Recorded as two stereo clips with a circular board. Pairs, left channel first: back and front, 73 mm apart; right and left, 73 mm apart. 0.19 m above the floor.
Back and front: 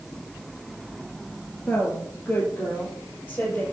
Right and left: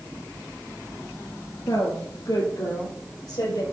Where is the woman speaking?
115° right, 3 m; by 3.6 s 110° right, 4.5 m.